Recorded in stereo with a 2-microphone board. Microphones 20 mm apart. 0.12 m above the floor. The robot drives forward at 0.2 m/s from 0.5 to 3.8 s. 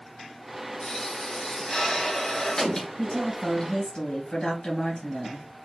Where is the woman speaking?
45° left (ahead or behind), 2.5 m; by 5.5 s 50° left (ahead or behind), 2.5 m.